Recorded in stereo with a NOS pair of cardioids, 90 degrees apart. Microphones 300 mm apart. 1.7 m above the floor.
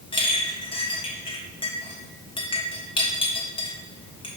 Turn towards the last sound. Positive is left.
turn(degrees=20)